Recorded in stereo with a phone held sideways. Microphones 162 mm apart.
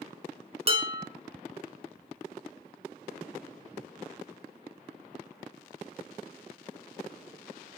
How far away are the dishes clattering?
About 1.0 m.